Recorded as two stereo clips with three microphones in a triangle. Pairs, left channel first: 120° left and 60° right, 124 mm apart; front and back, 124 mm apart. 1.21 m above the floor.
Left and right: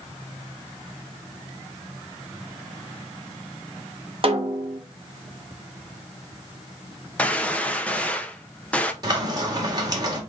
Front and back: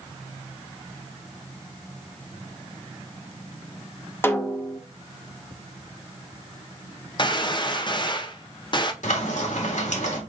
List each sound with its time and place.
4.2 s a snare drum: 65° right, 0.9 m
7.2 s a gunshot: 40° left, 0.7 m
9.0 s frying: 5° right, 1.8 m